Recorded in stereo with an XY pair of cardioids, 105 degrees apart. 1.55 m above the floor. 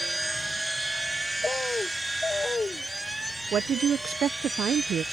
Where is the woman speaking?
60° right.